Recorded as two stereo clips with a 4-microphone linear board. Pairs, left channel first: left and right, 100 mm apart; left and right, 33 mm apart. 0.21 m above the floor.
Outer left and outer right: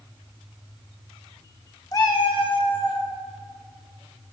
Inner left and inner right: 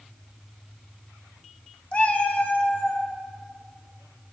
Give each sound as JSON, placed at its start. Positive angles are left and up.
{"t": 1.9, "sound": "a cat meowing", "side_deg": 35, "distance_m": 0.6}